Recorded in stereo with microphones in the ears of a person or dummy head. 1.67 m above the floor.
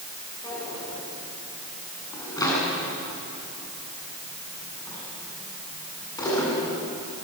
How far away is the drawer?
About 8.5 m.